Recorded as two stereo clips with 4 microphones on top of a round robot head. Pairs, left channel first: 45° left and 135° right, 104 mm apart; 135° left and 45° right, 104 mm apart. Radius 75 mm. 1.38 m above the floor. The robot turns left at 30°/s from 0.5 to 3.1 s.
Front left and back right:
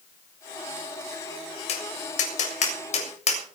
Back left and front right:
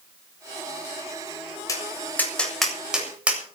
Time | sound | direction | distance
1.7 | tapping | 75° left | 7 m